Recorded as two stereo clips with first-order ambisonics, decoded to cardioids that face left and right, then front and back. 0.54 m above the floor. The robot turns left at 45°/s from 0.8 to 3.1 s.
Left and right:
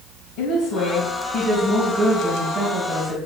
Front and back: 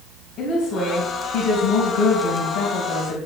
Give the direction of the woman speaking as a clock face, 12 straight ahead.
10 o'clock.